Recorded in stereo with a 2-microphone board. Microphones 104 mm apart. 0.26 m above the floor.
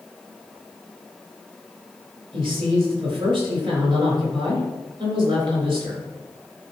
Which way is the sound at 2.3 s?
50° right (ahead or behind).